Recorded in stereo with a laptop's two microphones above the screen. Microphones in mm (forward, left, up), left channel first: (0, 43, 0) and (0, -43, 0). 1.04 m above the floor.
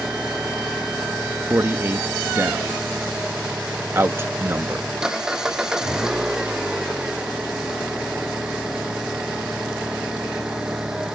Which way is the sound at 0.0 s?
5° right (ahead or behind).